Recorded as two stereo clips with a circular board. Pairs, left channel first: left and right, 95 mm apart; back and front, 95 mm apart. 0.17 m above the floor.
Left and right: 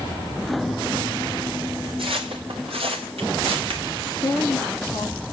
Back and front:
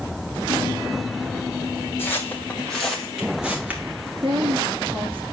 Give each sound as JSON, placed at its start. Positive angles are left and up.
{"t": 2.0, "sound": "footsteps", "azimuth_deg": -110, "distance_m": 3.5}
{"t": 4.2, "sound": "a woman speaking", "azimuth_deg": 20, "distance_m": 3.5}